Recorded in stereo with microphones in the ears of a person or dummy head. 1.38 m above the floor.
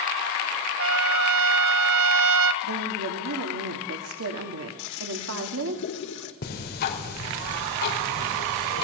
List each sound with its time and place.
0.8 s a trumpet: 70° right (ahead or behind), 1.6 m
2.6 s a woman speaking: 85° right, 2.5 m
4.8 s a toilet flushing: 60° left (ahead or behind), 1.9 m
6.4 s ticking: 55° left (ahead or behind), 4 m